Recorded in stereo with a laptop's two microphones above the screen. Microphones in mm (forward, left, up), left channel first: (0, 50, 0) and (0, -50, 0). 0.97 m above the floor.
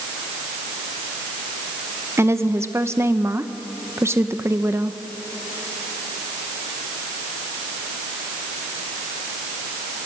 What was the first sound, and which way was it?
A woman speaking, 30° right (ahead or behind).